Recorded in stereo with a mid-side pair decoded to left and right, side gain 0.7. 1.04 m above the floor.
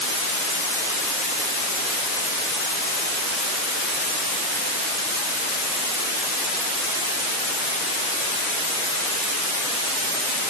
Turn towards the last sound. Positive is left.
No sound to turn to.